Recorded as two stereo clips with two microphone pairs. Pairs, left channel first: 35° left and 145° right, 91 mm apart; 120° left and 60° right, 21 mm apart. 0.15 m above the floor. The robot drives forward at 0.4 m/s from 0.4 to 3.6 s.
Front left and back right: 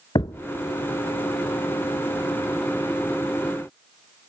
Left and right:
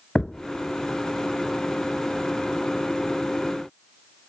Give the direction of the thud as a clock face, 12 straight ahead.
10 o'clock.